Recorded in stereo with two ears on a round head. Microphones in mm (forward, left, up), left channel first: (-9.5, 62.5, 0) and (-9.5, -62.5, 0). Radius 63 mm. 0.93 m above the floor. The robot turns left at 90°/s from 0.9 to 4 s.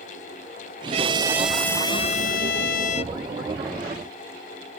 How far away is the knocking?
No knocking in this recording.